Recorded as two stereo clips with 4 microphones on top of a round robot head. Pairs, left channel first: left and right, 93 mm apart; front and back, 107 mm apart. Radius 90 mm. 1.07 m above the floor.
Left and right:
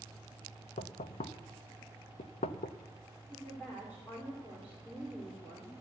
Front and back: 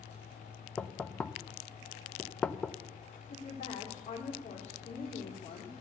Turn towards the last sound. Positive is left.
turn(degrees=10)